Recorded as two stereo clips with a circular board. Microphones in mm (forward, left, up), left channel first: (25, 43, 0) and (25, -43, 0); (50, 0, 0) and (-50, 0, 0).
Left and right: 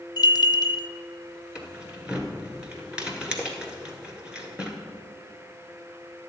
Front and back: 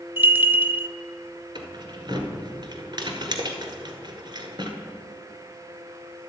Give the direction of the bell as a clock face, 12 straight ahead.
8 o'clock.